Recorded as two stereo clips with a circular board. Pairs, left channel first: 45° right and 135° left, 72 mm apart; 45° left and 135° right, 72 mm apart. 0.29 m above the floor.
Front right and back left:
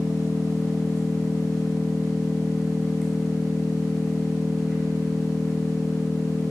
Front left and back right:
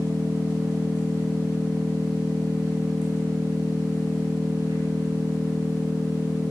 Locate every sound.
0.0 s an engine running: 130° right, 4.5 m